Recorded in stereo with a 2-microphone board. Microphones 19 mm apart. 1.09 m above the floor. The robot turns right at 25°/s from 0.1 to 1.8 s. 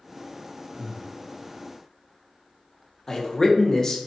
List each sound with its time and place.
0.7 s breathing: 40° right (ahead or behind), 0.6 m; by 1.1 s 45° right (ahead or behind), 0.6 m
3.1 s a man speaking: 25° left (ahead or behind), 0.5 m